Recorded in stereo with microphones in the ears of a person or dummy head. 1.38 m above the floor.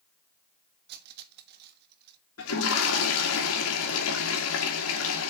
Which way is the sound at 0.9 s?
60° right (ahead or behind).